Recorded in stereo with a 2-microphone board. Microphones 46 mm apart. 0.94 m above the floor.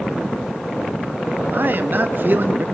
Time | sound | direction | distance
1.5 | a man speaking | 55° right (ahead or behind) | 1.3 m